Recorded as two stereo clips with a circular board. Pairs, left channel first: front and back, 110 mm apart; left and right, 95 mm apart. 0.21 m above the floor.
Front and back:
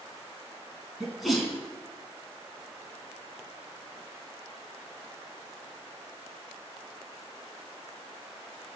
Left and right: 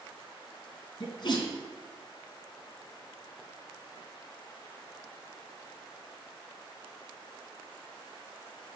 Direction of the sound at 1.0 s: 90° left.